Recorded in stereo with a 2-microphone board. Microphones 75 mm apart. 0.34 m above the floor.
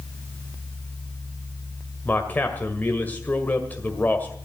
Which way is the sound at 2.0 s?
25° left (ahead or behind).